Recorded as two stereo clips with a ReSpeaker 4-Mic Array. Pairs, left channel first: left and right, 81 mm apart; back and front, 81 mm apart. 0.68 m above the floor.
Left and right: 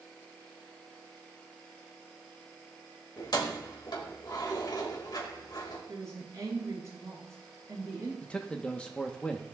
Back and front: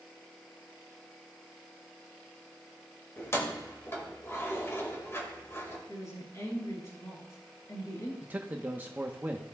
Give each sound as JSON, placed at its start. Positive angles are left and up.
{"t": 3.2, "sound": "keys jangling", "azimuth_deg": 120, "distance_m": 1.8}
{"t": 5.9, "sound": "a woman speaking", "azimuth_deg": -135, "distance_m": 5.5}
{"t": 8.2, "sound": "a man speaking", "azimuth_deg": 30, "distance_m": 0.8}